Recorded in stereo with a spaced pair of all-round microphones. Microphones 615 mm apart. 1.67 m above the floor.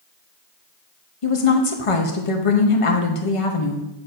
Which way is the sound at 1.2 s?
55° left (ahead or behind).